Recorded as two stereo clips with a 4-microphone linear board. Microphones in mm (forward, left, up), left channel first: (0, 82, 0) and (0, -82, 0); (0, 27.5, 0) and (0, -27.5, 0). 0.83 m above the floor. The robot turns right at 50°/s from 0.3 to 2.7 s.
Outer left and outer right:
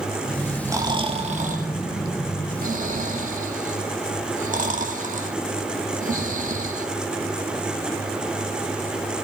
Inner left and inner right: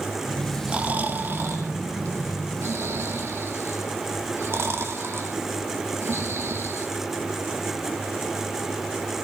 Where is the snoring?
15° right (ahead or behind), 1.8 m; by 6.9 s 55° right (ahead or behind), 1.8 m.